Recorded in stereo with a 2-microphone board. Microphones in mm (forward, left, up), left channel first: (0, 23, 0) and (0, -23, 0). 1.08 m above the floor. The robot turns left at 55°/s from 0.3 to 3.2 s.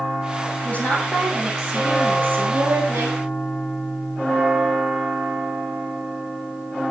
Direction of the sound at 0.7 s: 35° left.